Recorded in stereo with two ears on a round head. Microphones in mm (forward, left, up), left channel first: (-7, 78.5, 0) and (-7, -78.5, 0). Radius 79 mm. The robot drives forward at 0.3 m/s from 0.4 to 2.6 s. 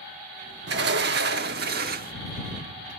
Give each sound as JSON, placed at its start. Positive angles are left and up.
{"t": 0.7, "sound": "a sliding door", "side_deg": -70, "distance_m": 1.1}